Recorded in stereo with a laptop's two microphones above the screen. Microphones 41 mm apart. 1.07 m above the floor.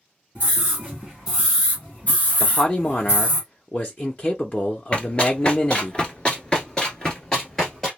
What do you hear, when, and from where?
0.3 s a scream: 35° right (ahead or behind), 1.0 m; by 3.4 s 70° left (ahead or behind), 1.3 m
2.4 s a man speaking: 35° left (ahead or behind), 0.6 m
4.9 s running footsteps: 30° left (ahead or behind), 1.2 m; by 7.9 s 10° left (ahead or behind), 1.5 m